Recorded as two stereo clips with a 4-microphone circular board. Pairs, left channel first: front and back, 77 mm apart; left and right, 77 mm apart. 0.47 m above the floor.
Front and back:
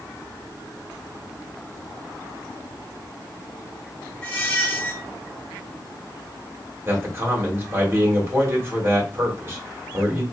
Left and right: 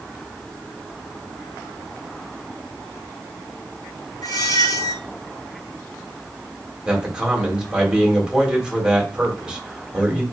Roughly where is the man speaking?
Behind.